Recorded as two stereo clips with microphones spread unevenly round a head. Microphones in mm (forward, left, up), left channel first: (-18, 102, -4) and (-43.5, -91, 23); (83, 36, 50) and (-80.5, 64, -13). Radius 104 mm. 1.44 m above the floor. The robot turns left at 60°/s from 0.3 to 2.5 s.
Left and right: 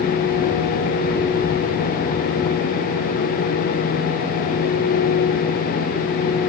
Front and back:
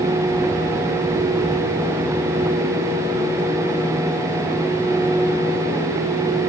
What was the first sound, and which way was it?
Only background noise.